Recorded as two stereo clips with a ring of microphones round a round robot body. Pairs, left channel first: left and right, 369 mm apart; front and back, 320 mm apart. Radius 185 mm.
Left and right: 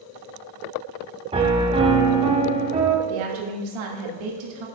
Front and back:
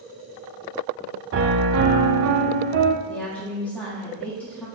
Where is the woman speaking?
85° right, 1.5 m.